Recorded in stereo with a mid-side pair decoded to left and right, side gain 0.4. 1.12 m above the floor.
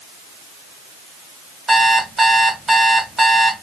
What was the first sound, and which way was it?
An alarm clock, 30° right.